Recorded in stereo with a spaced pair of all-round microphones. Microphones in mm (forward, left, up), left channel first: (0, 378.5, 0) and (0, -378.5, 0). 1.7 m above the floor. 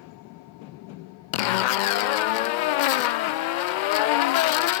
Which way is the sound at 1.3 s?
80° left.